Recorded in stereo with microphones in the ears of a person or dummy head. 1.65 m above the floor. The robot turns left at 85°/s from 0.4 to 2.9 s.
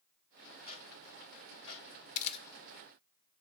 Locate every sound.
0.7 s ticking: 45° right (ahead or behind), 3 m; by 1.8 s 45° left (ahead or behind), 3 m
2.1 s a camera shutter: 45° left (ahead or behind), 0.6 m; by 2.5 s 20° left (ahead or behind), 0.6 m